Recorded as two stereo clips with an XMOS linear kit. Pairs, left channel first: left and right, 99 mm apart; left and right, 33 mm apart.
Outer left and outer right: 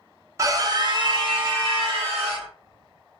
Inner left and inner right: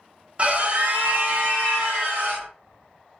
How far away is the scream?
About 0.7 m.